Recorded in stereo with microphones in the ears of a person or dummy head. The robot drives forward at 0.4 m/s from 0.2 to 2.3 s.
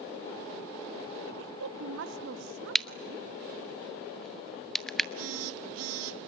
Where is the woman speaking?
75° right (ahead or behind), 1.5 m; by 3.2 s 65° right (ahead or behind), 1.6 m.